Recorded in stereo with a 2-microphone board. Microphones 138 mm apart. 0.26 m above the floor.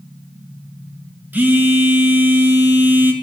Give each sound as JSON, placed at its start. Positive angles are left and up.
{"t": 1.3, "sound": "a phone buzzing", "side_deg": -15, "distance_m": 1.4}